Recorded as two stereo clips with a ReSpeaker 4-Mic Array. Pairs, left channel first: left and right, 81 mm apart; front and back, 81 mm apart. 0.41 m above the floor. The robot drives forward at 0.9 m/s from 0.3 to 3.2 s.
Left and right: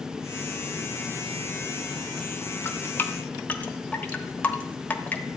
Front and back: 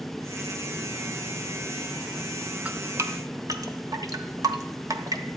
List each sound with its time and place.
2.6 s dripping: 120° left, 0.6 m; by 5.2 s 155° left, 0.9 m